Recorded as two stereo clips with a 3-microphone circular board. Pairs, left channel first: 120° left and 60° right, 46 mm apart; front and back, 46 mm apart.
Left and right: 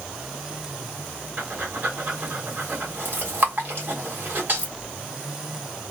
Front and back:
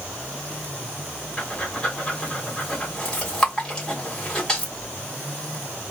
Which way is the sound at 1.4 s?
65° right.